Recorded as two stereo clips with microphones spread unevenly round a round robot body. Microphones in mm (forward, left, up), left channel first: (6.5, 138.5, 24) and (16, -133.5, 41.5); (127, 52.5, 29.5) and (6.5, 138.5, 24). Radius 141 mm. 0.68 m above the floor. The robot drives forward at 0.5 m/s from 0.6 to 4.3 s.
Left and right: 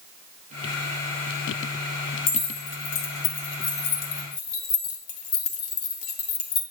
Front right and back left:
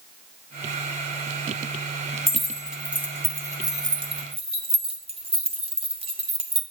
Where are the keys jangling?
55° left, 1.6 m; by 6.6 s 90° left, 1.3 m.